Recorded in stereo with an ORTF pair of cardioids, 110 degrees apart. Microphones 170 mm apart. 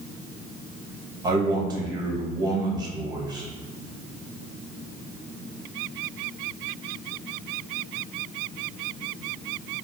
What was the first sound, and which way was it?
A man speaking, 20° right.